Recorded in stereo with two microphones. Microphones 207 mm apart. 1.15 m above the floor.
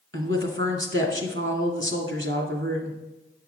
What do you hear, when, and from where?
0.1 s a woman speaking: 75° right (ahead or behind), 2 m